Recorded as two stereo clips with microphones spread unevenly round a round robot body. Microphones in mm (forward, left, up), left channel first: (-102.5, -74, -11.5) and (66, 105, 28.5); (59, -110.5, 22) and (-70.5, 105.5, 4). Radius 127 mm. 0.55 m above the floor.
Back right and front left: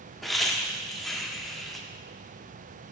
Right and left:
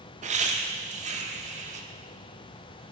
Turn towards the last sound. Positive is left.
turn(degrees=150)